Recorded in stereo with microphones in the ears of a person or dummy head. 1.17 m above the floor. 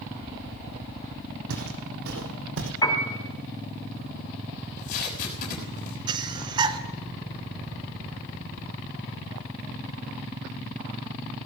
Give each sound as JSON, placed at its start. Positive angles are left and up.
{"t": 1.5, "sound": "footsteps", "side_deg": -70, "distance_m": 3.5}
{"t": 2.8, "sound": "a piano", "side_deg": 20, "distance_m": 3.5}
{"t": 4.6, "sound": "tape being pulled", "side_deg": 50, "distance_m": 6.5}
{"t": 6.1, "sound": "breathing", "side_deg": -25, "distance_m": 1.0}